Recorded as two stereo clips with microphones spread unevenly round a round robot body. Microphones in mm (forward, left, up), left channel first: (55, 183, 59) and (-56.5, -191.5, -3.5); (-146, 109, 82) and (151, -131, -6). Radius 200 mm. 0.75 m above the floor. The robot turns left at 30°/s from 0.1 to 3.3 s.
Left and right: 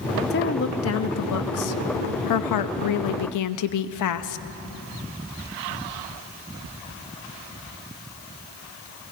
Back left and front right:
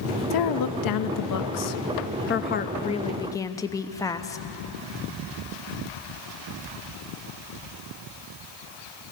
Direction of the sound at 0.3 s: 135° left.